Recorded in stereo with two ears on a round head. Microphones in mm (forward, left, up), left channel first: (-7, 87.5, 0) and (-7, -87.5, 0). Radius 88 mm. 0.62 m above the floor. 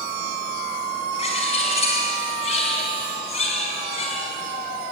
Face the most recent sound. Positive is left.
turn(degrees=35)  # may be behind; listen again after turning